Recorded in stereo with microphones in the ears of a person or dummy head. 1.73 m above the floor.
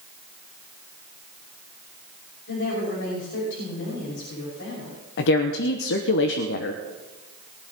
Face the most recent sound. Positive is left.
turn(degrees=65)  # may be behind; listen again after turning